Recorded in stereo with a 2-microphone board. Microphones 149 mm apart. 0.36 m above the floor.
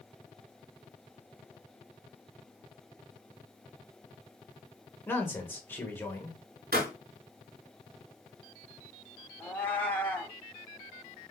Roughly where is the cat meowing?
Centre.